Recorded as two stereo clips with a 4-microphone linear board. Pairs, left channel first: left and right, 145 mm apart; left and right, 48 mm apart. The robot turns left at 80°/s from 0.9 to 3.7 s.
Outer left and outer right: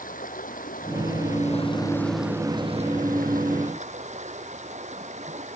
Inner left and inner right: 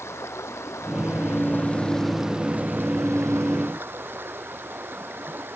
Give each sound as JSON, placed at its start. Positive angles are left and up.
{"t": 0.0, "sound": "running water", "azimuth_deg": 100}